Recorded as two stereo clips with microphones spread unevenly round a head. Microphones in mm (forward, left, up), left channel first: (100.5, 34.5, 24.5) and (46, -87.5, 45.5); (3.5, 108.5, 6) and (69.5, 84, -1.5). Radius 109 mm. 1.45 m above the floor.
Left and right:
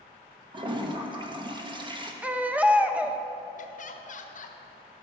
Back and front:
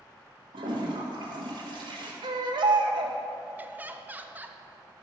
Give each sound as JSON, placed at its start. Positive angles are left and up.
{"t": 0.5, "sound": "a toilet flushing", "azimuth_deg": -60, "distance_m": 1.3}
{"t": 2.2, "sound": "a baby crying", "azimuth_deg": -35, "distance_m": 0.8}
{"t": 3.6, "sound": "laughter", "azimuth_deg": 45, "distance_m": 1.2}